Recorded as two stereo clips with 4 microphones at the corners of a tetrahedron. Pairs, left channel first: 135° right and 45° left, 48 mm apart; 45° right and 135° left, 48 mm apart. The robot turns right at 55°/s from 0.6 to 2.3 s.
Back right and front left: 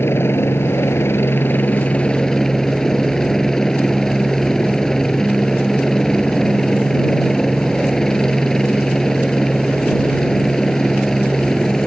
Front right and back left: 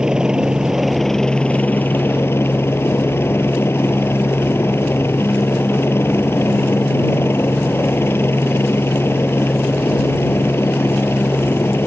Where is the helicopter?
155° right; by 11.9 s 60° right.